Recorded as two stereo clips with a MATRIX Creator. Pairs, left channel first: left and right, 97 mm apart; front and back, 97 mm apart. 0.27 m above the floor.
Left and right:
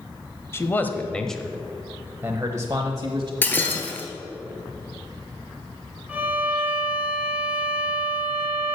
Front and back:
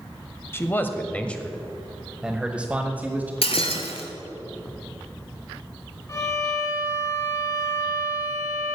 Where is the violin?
25° right, 1.4 m.